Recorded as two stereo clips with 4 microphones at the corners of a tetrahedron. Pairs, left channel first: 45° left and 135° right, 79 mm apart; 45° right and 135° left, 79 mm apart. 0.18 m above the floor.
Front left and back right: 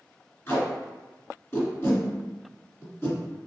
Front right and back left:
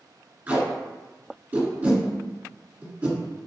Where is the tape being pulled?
80° left, 1.7 m.